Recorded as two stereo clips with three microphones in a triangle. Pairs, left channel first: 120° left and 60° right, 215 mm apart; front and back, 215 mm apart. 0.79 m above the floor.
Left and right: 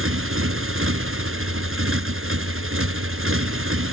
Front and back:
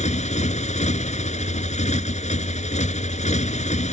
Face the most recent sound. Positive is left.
turn(degrees=-55)